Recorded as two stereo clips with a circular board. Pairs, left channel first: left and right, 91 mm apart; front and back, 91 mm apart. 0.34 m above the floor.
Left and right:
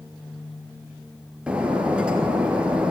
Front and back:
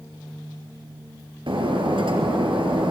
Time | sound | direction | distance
1.5 | breaking glass | 170° right | 3.5 m